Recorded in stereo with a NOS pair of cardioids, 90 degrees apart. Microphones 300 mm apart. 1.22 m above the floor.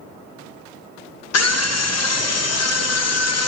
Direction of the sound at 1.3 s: 55° left.